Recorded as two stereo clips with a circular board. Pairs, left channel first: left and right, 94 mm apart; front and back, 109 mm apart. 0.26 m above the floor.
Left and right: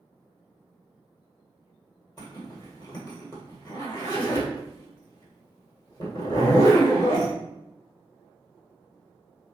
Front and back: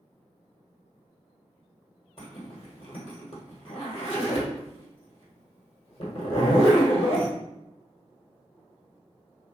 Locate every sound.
2.2 s a zipper: 35° left, 1.1 m